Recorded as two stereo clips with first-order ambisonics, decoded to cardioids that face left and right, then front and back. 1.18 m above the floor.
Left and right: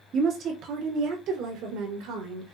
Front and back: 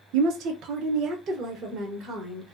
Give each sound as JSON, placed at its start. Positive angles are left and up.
{"t": 0.1, "sound": "a woman speaking", "azimuth_deg": -145, "distance_m": 0.6}